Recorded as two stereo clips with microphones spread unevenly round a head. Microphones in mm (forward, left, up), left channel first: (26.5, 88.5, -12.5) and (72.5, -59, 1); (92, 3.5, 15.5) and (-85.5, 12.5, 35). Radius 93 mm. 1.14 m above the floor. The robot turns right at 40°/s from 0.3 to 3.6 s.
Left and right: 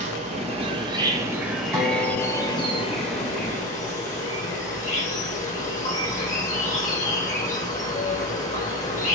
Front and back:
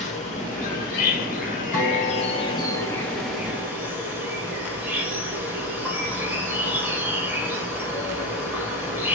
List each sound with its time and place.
0.0 s an insect: 35° right, 1.1 m; by 9.2 s 95° left, 1.1 m
1.7 s a guitar: 30° left, 3.5 m; by 3.8 s 105° left, 3.5 m